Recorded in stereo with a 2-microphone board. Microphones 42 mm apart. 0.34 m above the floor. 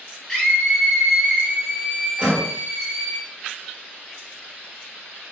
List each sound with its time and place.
0.3 s a scream: 5° left (ahead or behind), 1.8 m; by 3.2 s 30° right (ahead or behind), 1.7 m
2.2 s a door slam: 30° right (ahead or behind), 1.2 m